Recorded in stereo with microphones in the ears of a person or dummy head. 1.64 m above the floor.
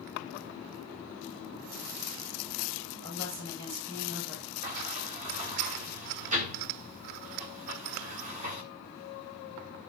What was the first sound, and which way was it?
A woman speaking, 60° right (ahead or behind).